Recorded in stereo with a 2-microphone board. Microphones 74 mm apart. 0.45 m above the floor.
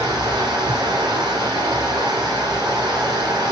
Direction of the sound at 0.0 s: 80° right.